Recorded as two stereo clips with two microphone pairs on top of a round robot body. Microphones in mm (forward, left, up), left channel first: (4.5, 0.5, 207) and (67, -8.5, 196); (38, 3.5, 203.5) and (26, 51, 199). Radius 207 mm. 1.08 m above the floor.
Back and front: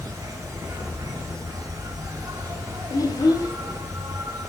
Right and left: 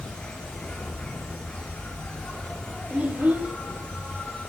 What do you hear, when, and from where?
0.0 s an insect: 5° right, 3.5 m
2.9 s a child speaking: 160° left, 3 m